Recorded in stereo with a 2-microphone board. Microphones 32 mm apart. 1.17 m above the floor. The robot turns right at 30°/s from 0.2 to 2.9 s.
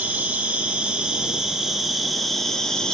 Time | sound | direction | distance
0.0 | an insect | 60° right | 0.7 m